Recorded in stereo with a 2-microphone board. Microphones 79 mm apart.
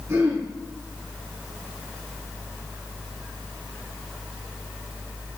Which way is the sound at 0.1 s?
35° right (ahead or behind).